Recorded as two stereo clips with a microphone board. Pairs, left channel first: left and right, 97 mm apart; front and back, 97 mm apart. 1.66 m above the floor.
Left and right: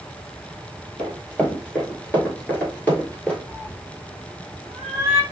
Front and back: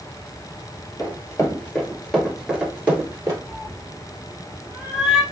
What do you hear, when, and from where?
1.0 s running footsteps: 20° left, 1.9 m; by 3.4 s 150° left, 1.9 m
3.5 s a cat meowing: 100° right, 1.0 m